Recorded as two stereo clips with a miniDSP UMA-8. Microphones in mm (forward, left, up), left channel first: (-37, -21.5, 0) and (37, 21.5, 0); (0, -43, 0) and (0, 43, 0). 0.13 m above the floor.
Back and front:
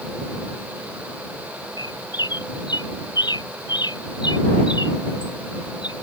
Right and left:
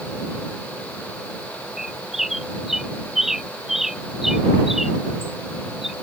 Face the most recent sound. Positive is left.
turn(degrees=175)